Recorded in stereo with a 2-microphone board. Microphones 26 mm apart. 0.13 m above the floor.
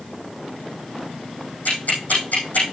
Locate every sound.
1.6 s ticking: 70° left (ahead or behind), 5.5 m